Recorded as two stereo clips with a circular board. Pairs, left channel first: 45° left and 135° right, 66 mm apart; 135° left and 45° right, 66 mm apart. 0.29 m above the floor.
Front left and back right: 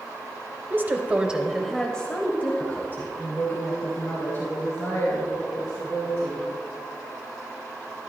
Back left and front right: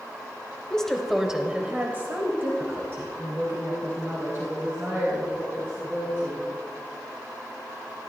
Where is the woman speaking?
155° right, 1.1 m; by 6.4 s straight ahead, 4.5 m.